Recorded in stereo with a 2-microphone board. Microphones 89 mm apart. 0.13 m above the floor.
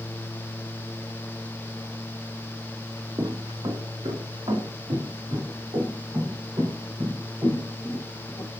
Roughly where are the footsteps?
Right.